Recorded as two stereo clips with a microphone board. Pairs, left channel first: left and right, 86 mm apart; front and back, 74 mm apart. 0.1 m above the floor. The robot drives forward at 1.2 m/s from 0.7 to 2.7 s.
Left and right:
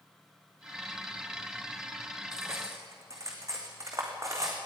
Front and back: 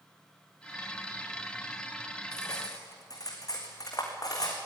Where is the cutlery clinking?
35° right, 5 m.